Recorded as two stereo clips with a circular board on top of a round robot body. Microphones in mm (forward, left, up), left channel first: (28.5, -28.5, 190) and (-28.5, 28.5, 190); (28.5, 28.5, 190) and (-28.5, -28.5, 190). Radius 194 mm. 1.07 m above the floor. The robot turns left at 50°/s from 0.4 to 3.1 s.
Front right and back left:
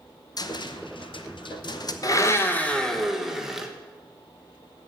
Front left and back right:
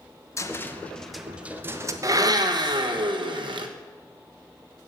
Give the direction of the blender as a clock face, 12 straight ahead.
3 o'clock.